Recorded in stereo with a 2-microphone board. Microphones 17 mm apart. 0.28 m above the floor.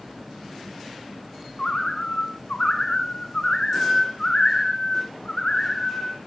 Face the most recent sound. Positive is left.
turn(degrees=45)  # may be behind; listen again after turning